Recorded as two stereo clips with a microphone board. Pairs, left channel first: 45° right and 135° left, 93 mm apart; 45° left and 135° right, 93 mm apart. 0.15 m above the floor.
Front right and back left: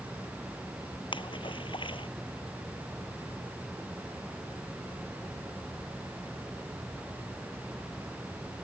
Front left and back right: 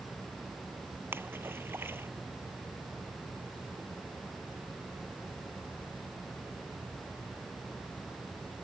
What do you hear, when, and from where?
1.1 s a splash: 70° right